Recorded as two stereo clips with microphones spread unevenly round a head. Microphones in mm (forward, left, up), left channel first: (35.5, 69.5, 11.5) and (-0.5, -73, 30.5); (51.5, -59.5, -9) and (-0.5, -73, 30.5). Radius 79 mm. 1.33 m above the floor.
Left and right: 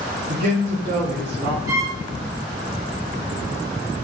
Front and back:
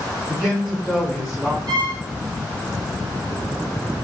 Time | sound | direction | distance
0.3 | a man speaking | 80° right | 2.5 m
1.7 | a violin | 175° right | 1.1 m